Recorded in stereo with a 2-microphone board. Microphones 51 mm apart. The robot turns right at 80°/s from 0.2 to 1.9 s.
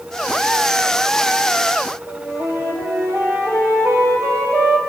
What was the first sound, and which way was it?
A flute, 65° right (ahead or behind).